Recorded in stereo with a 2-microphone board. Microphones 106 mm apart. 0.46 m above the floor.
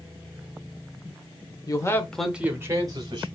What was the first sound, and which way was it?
A man speaking, 40° left (ahead or behind).